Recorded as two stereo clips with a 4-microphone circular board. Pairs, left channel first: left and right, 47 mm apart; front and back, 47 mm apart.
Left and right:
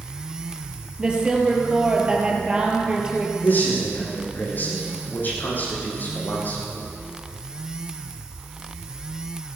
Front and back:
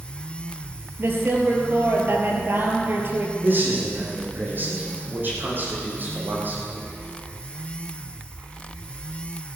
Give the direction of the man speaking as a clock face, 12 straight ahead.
7 o'clock.